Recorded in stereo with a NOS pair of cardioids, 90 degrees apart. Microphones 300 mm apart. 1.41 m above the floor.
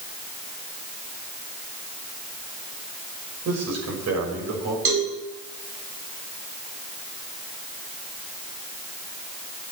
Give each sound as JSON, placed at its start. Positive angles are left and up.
{"t": 3.5, "sound": "a man speaking", "azimuth_deg": -60, "distance_m": 6.0}
{"t": 4.8, "sound": "a cowbell", "azimuth_deg": -50, "distance_m": 4.5}